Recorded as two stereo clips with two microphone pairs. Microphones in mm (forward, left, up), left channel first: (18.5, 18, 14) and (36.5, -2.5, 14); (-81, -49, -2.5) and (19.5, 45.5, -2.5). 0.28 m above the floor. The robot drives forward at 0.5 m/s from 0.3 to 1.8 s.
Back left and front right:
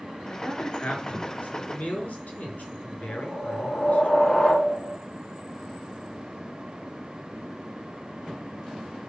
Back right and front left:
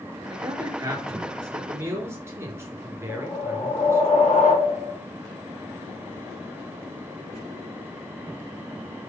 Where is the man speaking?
105° left, 4 m; by 4.1 s 115° left, 4.5 m.